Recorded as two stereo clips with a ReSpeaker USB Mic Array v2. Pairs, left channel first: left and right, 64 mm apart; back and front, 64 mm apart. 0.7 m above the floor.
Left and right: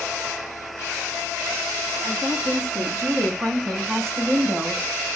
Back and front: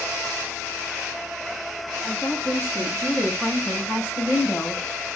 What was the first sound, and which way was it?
A woman speaking, 120° right.